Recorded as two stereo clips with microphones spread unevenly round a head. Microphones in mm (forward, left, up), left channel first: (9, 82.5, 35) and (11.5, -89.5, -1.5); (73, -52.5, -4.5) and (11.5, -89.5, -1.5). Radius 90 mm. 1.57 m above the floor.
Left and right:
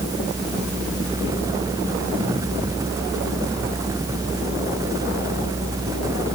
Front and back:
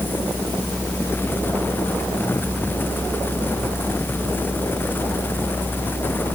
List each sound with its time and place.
Only background noise.